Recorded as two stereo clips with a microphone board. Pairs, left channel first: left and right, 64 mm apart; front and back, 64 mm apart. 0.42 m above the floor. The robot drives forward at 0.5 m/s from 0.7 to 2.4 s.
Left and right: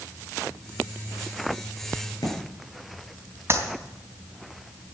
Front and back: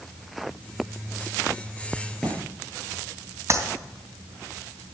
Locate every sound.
2.0 s a crack: 85° left, 6.5 m
3.5 s a clap: 135° right, 3 m